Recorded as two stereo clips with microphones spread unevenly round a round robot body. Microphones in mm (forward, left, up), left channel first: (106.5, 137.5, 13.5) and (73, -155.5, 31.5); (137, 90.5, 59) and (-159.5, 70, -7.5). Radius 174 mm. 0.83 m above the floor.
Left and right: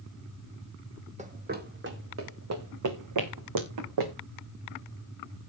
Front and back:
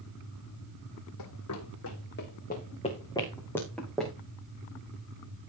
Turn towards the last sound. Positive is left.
turn(degrees=-85)